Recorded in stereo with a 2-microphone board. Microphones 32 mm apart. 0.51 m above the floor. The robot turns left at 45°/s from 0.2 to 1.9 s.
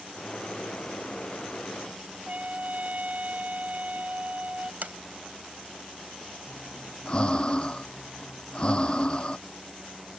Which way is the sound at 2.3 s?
50° right (ahead or behind).